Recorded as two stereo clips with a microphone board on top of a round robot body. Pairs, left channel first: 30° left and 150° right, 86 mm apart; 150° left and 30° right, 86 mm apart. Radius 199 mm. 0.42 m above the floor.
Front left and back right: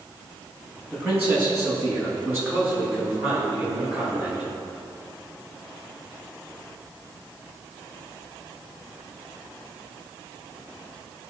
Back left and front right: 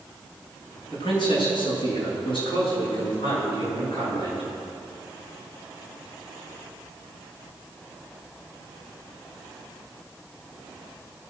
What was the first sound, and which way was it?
A man speaking, 145° left.